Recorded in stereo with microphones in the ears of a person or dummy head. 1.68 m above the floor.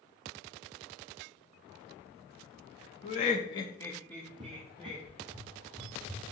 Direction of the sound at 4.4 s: 20° right (ahead or behind).